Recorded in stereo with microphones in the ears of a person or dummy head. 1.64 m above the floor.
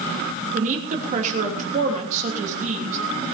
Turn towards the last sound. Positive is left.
turn(degrees=-45)  # may be behind; listen again after turning